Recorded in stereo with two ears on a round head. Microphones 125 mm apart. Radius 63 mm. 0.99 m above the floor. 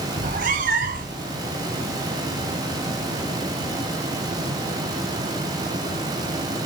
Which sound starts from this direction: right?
A cat meowing, at 0.2 s.